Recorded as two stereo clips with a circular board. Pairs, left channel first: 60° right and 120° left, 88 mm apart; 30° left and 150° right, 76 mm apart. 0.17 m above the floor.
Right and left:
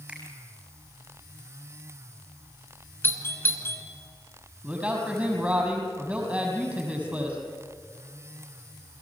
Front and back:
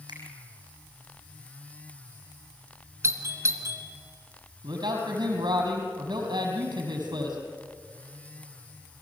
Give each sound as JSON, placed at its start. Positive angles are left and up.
{"t": 0.1, "sound": "a finger snap", "azimuth_deg": -160, "distance_m": 6.0}
{"t": 3.0, "sound": "a doorbell", "azimuth_deg": -115, "distance_m": 2.5}
{"t": 4.6, "sound": "a man speaking", "azimuth_deg": -160, "distance_m": 6.0}